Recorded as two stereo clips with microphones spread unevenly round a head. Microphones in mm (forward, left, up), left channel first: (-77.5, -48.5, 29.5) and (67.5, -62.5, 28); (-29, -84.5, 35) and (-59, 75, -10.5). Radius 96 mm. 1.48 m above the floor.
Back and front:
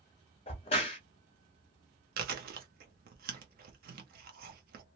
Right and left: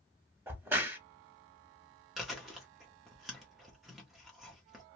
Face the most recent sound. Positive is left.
turn(degrees=20)